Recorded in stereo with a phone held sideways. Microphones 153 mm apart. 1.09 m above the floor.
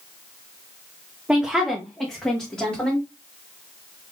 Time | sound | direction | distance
1.3 | a woman speaking | 10° right (ahead or behind) | 0.6 m